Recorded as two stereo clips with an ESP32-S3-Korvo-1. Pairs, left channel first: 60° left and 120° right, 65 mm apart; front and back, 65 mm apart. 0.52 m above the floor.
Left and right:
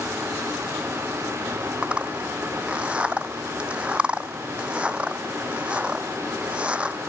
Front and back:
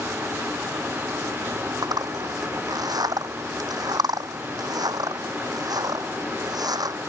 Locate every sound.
1.8 s a zipper: 170° left